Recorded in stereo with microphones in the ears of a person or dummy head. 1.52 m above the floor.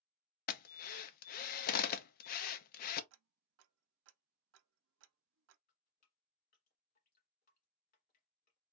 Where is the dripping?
40° left (ahead or behind), 1.9 m.